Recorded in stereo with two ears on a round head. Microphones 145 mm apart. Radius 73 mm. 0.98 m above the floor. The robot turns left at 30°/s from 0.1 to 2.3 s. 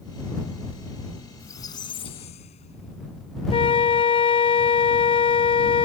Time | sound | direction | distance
1.4 | a squeak | 15° left (ahead or behind) | ?
3.5 | a flute | 35° left (ahead or behind) | ?